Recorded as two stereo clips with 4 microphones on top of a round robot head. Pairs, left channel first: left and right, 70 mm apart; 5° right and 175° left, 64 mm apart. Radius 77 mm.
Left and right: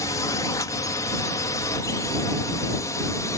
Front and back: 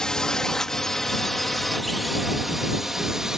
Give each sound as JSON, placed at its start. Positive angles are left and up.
{"t": 0.0, "sound": "a drone", "azimuth_deg": 70}